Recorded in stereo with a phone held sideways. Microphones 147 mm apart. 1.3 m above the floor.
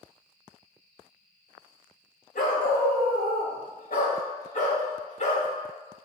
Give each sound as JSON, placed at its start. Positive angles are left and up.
{"t": 2.4, "sound": "a dog barking", "side_deg": 70, "distance_m": 2.0}